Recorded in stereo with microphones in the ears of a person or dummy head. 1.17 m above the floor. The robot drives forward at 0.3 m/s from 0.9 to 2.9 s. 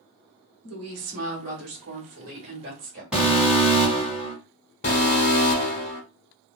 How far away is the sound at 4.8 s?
About 1.4 m.